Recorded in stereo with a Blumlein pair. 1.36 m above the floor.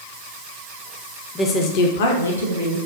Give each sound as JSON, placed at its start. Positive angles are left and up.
{"t": 1.4, "sound": "a woman speaking", "azimuth_deg": 10, "distance_m": 0.5}